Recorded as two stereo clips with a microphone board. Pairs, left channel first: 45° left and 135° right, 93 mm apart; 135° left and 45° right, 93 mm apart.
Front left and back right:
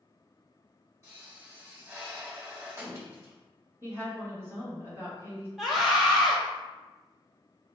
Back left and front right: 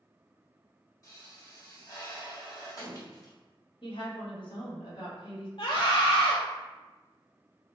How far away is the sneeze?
I don't hear a sneeze.